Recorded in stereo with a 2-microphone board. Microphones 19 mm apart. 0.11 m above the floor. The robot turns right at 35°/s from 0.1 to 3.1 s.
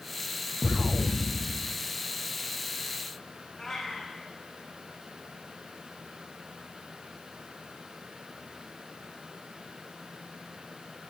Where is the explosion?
95° right, 0.7 m; by 1.8 s 55° right, 0.7 m.